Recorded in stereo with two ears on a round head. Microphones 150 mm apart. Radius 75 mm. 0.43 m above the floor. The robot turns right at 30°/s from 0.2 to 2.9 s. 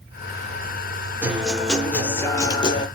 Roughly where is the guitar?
Ahead.